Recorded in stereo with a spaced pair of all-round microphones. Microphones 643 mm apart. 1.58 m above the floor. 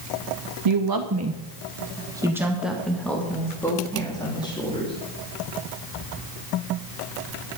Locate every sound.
0.7 s a woman speaking: 50° right (ahead or behind), 0.6 m; by 5.0 s 10° left (ahead or behind), 3.5 m